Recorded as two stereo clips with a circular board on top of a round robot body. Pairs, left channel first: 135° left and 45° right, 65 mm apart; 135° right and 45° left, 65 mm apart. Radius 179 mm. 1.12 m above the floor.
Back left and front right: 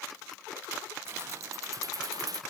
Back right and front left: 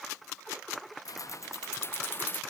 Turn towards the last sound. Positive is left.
turn(degrees=-70)